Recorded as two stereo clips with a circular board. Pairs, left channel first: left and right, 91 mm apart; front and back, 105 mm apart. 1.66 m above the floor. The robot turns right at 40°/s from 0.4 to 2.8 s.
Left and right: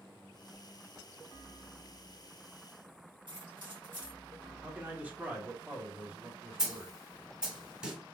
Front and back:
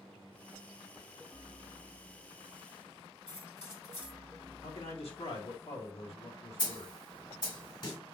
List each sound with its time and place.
3.3 s keys jangling: 65° right, 1.8 m
4.6 s a man speaking: 20° right, 1.5 m
6.6 s a snare drum: 15° right, 1.9 m